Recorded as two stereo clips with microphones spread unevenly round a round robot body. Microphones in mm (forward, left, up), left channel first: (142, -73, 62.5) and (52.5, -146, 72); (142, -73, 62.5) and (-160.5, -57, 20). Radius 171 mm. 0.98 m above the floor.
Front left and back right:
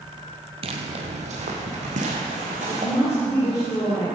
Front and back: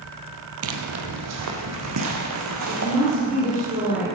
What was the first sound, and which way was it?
Footsteps, 145° right.